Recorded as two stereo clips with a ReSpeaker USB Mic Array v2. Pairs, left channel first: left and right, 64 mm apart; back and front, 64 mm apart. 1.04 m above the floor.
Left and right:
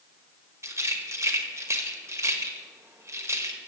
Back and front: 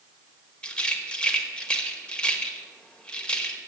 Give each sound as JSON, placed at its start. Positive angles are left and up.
{"t": 0.6, "sound": "a rattle", "azimuth_deg": -110, "distance_m": 1.1}